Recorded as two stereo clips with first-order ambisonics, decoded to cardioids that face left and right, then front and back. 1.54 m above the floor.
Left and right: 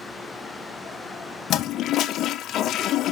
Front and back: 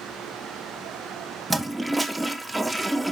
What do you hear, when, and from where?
1.5 s a toilet flushing: 100° left, 0.6 m